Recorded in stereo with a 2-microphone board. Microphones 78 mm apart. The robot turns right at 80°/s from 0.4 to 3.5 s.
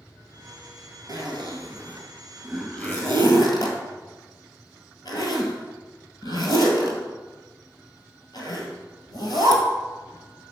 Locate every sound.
1.1 s a zipper: 60° right (ahead or behind), 1.8 m; by 9.6 s 70° left (ahead or behind), 1.8 m